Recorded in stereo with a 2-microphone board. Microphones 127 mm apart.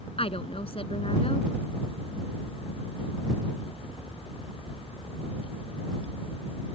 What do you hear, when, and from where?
0.2 s a woman speaking: 50° left (ahead or behind)